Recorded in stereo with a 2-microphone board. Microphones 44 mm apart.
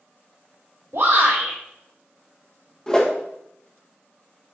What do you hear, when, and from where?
0.9 s a shout: 85° right, 3.5 m
2.9 s a whoosh: 15° left (ahead or behind), 1.0 m